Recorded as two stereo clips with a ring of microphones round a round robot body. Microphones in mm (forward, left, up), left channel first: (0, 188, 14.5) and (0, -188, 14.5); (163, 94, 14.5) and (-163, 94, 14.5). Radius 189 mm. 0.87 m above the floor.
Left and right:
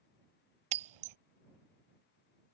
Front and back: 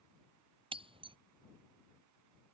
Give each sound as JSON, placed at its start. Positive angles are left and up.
{"t": 0.7, "sound": "breaking glass", "azimuth_deg": -105}